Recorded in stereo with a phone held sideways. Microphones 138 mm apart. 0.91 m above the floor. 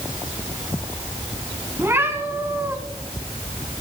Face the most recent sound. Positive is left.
turn(degrees=-20)  # may be behind; listen again after turning